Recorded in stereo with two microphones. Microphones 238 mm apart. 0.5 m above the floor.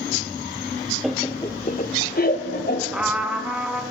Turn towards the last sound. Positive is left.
turn(degrees=-5)  # may be behind; listen again after turning